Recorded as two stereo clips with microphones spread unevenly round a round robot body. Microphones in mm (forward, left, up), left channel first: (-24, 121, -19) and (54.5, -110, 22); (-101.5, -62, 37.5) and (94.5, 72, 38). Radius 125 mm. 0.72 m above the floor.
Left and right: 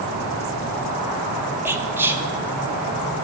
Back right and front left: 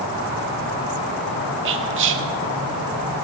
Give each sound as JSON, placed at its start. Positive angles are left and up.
{"t": 1.6, "sound": "whispering", "azimuth_deg": 15, "distance_m": 1.4}